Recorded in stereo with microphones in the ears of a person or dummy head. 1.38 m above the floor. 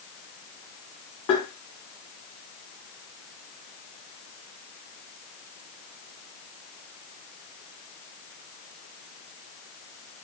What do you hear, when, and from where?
1.3 s tapping: 40° left (ahead or behind), 1.5 m